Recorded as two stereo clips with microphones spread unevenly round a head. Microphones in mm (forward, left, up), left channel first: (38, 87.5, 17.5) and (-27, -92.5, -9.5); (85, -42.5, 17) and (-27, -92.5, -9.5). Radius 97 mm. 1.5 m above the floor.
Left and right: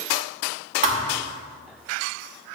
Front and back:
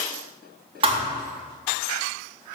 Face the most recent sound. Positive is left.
turn(degrees=-145)